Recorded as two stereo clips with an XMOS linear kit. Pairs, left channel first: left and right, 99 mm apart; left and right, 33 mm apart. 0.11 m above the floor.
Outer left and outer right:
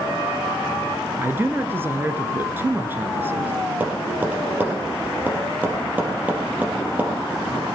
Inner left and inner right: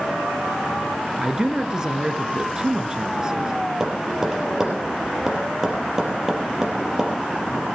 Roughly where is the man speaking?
Right.